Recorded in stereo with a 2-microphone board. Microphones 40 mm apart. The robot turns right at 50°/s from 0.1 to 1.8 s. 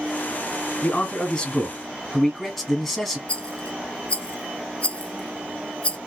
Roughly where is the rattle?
Left.